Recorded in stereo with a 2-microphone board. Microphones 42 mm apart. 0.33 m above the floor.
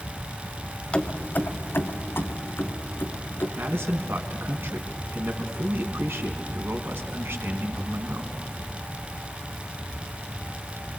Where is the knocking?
No knocking in this recording.